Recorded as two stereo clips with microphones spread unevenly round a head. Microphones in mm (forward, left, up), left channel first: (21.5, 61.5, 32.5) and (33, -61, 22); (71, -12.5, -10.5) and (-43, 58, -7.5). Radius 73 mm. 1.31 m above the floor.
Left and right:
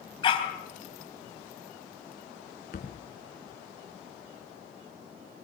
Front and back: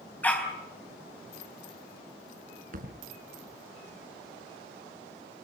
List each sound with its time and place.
0.2 s a dog barking: 45° left, 4 m
2.7 s a thud: 130° left, 3.5 m